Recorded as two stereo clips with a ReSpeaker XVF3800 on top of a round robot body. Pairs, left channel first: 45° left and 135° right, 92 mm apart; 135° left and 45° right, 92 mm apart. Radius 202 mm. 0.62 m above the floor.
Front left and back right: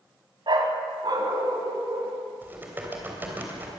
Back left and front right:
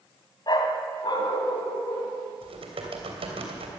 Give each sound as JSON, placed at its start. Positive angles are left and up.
{"t": 0.5, "sound": "a dog barking", "azimuth_deg": 180, "distance_m": 1.6}
{"t": 2.4, "sound": "typing on a keyboard", "azimuth_deg": -65, "distance_m": 3.0}